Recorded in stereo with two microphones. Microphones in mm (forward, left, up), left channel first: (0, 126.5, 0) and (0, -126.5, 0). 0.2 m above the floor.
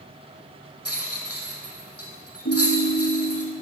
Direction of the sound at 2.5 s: 80° left.